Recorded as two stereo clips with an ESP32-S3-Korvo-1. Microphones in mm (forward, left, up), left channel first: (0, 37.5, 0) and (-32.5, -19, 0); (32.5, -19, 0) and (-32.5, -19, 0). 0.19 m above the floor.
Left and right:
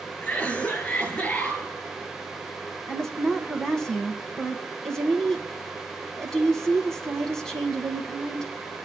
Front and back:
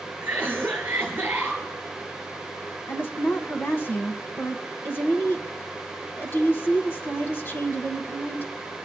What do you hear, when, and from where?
0.2 s a cough: 125° left, 4 m
2.9 s a woman speaking: 15° right, 1.4 m